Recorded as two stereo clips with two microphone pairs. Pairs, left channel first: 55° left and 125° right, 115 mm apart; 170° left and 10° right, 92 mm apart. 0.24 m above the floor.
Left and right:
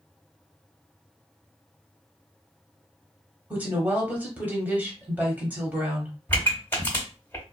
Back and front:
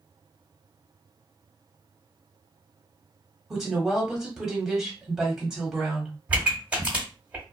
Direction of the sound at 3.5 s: 85° right.